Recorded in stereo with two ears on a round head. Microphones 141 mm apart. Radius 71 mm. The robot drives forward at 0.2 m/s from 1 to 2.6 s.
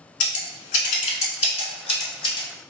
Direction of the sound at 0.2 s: 45° left (ahead or behind).